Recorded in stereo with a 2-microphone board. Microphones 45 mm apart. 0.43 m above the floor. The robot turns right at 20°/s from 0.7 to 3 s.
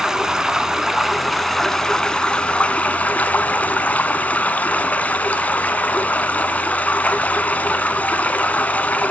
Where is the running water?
10° right, 0.9 m; by 9.1 s 35° left, 0.9 m.